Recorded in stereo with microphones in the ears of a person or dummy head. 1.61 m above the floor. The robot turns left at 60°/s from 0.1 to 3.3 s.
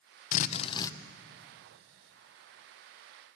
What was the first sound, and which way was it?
A drill, 50° left.